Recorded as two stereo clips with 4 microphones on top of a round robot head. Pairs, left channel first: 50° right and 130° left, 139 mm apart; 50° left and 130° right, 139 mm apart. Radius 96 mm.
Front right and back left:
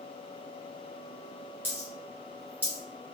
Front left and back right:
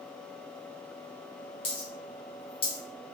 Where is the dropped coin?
65° left, 0.6 m.